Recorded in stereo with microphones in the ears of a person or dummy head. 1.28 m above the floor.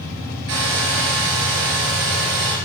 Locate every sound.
0.5 s a hair dryer: 70° right (ahead or behind), 4 m